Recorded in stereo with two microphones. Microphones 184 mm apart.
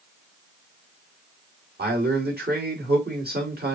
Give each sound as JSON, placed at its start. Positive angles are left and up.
{"t": 1.8, "sound": "a man speaking", "side_deg": -60, "distance_m": 2.0}